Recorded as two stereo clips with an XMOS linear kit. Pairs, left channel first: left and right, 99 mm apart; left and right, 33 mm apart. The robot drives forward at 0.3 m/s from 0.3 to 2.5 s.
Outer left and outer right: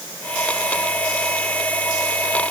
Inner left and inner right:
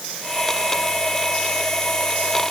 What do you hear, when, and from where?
Only background noise.